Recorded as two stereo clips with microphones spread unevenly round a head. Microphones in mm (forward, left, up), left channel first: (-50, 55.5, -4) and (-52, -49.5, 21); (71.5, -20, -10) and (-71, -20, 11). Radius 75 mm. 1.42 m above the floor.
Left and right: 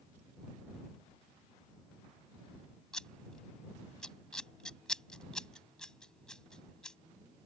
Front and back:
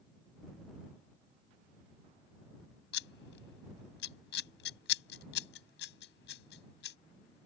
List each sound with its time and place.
2.9 s scissors: straight ahead